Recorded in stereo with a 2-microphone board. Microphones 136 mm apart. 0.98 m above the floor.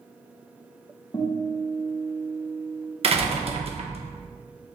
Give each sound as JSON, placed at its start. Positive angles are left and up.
{"t": 1.1, "sound": "a guitar", "side_deg": 35, "distance_m": 1.0}
{"t": 3.0, "sound": "a door slam", "side_deg": -45, "distance_m": 0.6}